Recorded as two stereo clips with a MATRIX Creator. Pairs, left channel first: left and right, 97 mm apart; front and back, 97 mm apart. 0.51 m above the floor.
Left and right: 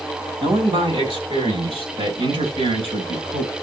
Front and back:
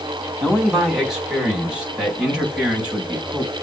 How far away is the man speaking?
About 3 m.